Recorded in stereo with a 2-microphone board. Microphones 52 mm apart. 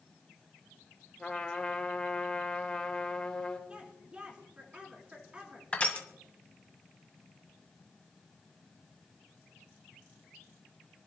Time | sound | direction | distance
1.2 | a trumpet | 15° left (ahead or behind) | 3.5 m
3.7 | a woman speaking | 20° right (ahead or behind) | 4 m
5.7 | crushing | 25° left (ahead or behind) | 1.8 m